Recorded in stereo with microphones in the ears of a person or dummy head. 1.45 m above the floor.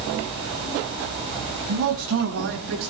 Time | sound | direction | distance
1.7 | a man speaking | 90° right | 6.5 m